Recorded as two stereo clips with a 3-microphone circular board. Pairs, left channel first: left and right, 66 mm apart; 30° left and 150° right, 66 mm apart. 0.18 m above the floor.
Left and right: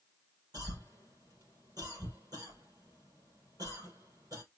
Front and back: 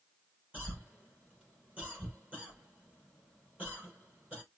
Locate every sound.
0.5 s a cough: 80° right, 4.5 m